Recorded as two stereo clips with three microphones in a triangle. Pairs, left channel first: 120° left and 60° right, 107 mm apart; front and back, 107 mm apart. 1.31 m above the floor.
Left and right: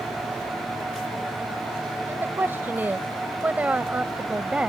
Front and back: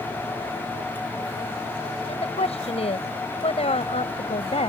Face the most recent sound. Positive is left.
turn(degrees=20)